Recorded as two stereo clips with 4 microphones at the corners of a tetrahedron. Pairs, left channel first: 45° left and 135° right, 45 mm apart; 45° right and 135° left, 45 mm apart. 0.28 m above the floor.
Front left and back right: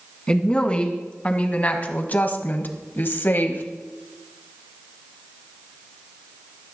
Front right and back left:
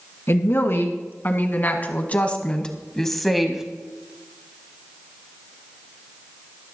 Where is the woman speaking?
20° right, 2.5 m; by 3.6 s 60° left, 1.5 m.